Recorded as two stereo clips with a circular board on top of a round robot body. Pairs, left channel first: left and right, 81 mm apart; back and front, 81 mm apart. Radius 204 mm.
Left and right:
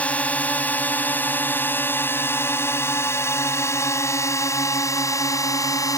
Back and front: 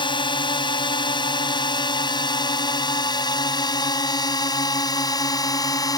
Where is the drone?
165° left; by 6.0 s 135° left.